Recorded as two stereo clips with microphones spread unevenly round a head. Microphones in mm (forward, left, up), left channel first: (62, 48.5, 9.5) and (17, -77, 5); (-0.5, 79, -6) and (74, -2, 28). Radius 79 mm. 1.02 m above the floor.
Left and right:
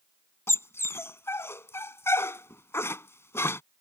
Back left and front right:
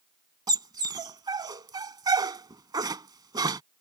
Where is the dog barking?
Straight ahead.